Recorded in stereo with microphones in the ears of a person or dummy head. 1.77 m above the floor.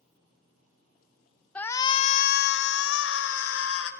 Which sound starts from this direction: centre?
A shout, at 1.6 s.